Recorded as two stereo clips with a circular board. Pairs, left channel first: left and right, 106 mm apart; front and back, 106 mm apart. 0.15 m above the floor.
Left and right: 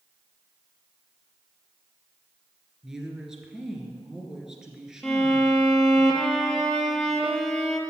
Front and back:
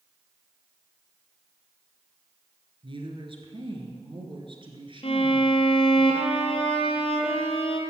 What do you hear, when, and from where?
2.8 s a woman speaking: 175° right, 2 m
5.0 s a violin: 5° left, 1.7 m